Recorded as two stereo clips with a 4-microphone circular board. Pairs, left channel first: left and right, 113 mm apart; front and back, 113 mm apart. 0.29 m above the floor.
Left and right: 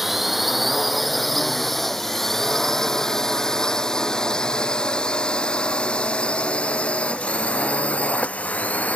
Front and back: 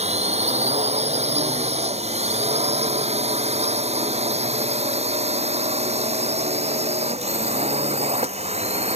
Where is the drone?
Straight behind; by 9.0 s 165° left.